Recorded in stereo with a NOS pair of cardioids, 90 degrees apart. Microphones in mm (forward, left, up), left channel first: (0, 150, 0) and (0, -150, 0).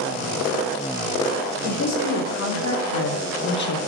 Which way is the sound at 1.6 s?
55° left.